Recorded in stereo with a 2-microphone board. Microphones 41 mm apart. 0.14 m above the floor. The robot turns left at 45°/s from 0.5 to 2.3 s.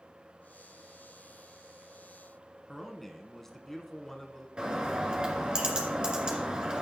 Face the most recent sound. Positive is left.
turn(degrees=-20)  # may be behind; listen again after turning